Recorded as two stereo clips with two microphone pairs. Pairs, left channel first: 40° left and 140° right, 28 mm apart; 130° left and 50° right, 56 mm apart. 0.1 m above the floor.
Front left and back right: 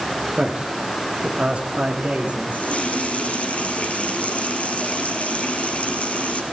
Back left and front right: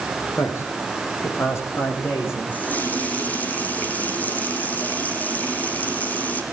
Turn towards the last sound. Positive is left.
turn(degrees=70)